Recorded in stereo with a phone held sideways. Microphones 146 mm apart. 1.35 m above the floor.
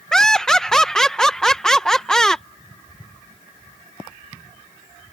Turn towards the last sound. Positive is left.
turn(degrees=5)  # may be behind; listen again after turning